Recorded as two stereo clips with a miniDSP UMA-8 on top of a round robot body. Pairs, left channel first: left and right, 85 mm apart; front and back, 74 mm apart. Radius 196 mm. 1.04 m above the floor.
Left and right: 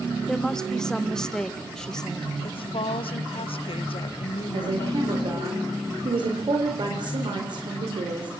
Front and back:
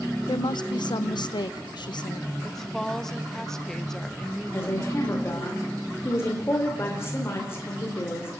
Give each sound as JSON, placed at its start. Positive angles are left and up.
{"t": 0.3, "sound": "a woman speaking", "azimuth_deg": 10, "distance_m": 1.5}
{"t": 2.4, "sound": "a woman speaking", "azimuth_deg": 85, "distance_m": 1.3}
{"t": 4.5, "sound": "a woman speaking", "azimuth_deg": -55, "distance_m": 4.0}